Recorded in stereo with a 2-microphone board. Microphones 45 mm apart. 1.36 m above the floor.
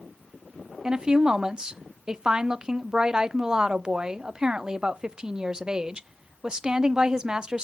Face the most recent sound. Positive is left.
turn(degrees=-20)  # may be behind; listen again after turning